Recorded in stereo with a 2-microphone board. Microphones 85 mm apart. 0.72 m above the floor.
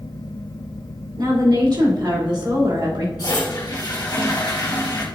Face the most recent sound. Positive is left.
turn(degrees=55)  # may be behind; listen again after turning